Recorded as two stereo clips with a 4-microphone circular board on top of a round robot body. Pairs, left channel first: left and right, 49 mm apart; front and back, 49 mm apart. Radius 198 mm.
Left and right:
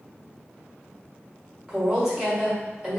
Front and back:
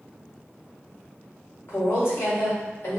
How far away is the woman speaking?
About 1.6 m.